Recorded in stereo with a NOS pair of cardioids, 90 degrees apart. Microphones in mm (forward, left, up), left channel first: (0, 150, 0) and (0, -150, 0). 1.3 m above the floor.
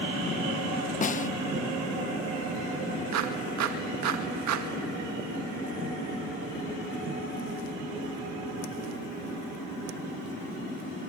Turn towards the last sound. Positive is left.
turn(degrees=-65)